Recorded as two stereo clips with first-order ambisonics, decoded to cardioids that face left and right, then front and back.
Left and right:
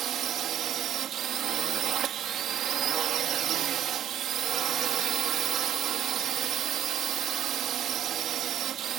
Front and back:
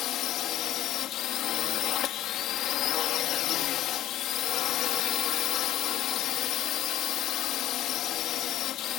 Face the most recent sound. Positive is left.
turn(degrees=-40)